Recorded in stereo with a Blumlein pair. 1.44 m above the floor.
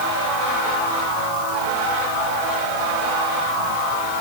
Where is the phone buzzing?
No phone buzzing in this recording.